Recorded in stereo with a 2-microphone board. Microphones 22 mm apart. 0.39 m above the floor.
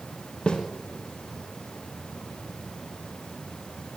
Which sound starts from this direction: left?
A snare drum, at 0.5 s.